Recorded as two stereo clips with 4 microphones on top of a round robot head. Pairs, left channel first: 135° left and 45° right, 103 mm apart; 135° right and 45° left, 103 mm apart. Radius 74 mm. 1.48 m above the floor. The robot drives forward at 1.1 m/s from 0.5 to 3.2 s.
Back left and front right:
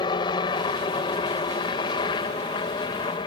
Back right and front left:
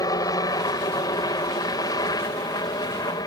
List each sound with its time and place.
0.0 s a helicopter: 175° left